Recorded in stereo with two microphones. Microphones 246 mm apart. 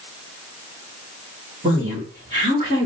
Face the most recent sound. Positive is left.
turn(degrees=-30)  # may be behind; listen again after turning